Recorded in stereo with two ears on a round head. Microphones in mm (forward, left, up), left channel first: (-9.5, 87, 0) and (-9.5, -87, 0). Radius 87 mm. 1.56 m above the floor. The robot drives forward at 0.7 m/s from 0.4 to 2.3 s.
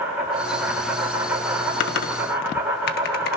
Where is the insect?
10° right (ahead or behind), 8.5 m.